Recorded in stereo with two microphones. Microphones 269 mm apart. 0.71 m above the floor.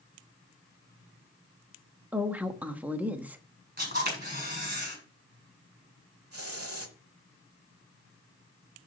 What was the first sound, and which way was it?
A woman speaking, 5° right (ahead or behind).